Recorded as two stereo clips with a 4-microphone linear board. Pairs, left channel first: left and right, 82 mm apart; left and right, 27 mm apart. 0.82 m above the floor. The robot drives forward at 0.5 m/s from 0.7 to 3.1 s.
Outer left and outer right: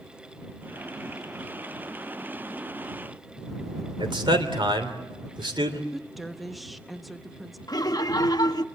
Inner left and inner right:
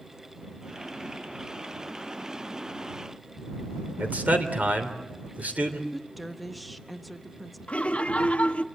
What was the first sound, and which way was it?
A man speaking, 75° right (ahead or behind).